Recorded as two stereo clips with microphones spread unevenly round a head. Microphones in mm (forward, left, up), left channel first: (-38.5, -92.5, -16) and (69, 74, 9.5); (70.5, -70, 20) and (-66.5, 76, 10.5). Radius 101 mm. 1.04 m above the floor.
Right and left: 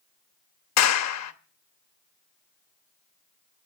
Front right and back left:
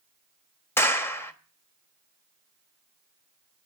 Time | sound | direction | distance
0.8 | a clap | 125° right | 1.0 m